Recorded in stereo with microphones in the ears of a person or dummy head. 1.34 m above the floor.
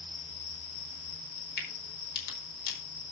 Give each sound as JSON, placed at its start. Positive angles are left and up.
{"t": 1.6, "sound": "a crack", "side_deg": 55, "distance_m": 4.5}